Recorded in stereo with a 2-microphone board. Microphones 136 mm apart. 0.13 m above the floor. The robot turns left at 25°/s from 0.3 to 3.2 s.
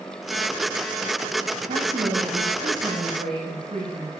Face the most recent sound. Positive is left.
turn(degrees=-105)